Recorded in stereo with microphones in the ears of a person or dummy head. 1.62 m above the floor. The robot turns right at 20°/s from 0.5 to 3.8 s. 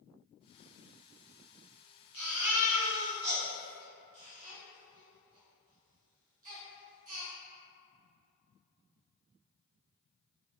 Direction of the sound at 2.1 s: 5° right (ahead or behind).